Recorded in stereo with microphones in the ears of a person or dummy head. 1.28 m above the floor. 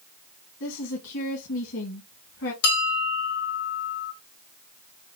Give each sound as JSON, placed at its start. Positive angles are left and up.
{"t": 0.6, "sound": "a woman speaking", "side_deg": 70, "distance_m": 1.8}
{"t": 2.6, "sound": "a bell", "side_deg": 90, "distance_m": 2.5}